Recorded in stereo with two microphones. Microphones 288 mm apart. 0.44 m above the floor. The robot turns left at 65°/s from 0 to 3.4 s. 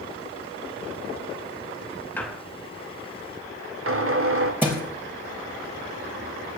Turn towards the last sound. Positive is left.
turn(degrees=-5)  # may be behind; listen again after turning